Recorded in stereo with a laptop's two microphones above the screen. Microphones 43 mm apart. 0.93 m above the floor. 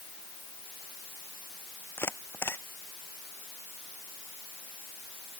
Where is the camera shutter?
65° left (ahead or behind).